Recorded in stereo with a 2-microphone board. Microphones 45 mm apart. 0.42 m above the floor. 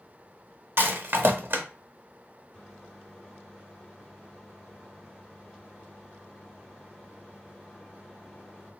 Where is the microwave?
10° left (ahead or behind), 1.0 m.